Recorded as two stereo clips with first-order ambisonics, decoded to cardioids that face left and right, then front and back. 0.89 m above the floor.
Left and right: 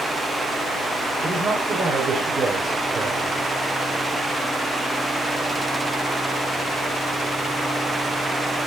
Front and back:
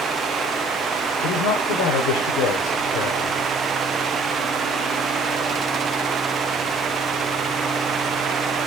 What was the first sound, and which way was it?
A man speaking, 20° right.